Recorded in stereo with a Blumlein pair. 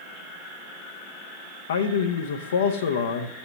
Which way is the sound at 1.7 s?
60° left.